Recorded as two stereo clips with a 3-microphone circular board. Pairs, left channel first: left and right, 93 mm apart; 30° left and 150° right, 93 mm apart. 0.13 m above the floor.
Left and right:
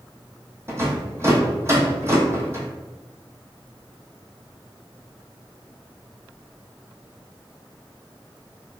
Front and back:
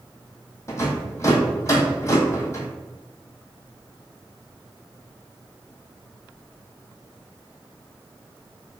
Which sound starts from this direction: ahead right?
A rattle, at 0.7 s.